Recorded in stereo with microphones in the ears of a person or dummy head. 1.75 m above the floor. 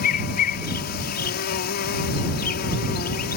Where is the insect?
45° left (ahead or behind).